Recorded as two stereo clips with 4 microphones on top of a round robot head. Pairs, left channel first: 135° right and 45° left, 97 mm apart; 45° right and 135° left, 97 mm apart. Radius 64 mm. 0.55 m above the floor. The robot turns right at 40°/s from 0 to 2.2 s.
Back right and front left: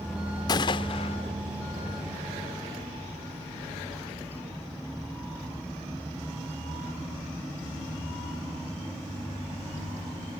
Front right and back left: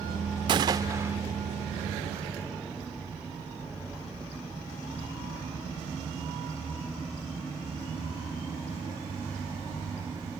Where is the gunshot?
175° left; by 1.2 s 155° right.